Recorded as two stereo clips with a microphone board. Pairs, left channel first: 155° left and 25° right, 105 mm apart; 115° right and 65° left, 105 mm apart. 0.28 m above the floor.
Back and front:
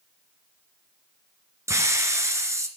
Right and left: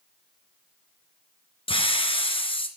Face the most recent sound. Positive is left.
turn(degrees=-85)